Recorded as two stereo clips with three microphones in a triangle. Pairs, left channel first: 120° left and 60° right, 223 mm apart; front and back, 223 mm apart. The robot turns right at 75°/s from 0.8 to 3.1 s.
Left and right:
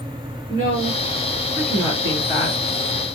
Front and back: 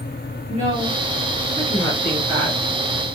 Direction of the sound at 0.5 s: 20° right.